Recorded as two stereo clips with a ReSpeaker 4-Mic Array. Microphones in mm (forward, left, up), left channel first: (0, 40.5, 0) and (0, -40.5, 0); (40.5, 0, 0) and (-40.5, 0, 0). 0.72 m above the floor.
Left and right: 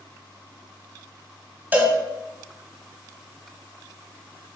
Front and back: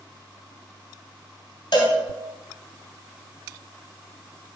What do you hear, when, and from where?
1.7 s a cowbell: 20° right, 3 m